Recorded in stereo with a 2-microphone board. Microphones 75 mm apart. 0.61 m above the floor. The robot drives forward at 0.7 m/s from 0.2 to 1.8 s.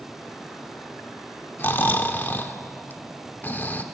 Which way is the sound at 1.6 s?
30° left (ahead or behind).